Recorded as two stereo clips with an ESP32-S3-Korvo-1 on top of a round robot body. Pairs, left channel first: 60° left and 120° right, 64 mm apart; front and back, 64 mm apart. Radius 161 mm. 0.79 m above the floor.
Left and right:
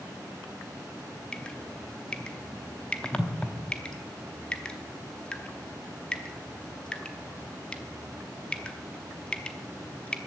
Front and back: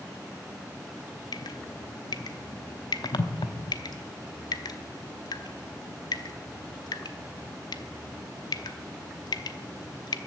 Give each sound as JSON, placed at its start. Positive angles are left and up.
{"t": 1.3, "sound": "dripping", "azimuth_deg": -20, "distance_m": 0.8}